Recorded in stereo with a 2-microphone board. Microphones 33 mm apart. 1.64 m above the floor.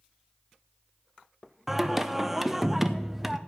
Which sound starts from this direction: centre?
Singing, at 1.7 s.